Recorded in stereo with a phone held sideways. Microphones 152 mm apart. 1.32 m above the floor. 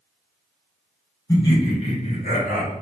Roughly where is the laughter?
Left.